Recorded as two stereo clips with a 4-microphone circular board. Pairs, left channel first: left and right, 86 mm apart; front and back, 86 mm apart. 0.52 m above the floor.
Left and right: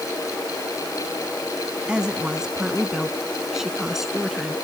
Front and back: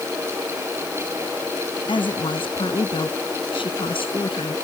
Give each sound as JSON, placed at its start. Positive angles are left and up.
{"t": 1.9, "sound": "a woman speaking", "azimuth_deg": -10}